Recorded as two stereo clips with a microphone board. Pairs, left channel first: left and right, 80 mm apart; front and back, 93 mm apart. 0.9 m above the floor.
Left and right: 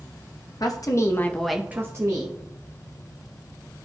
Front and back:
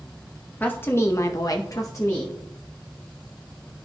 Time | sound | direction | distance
0.6 | a woman speaking | 65° left | 1.1 m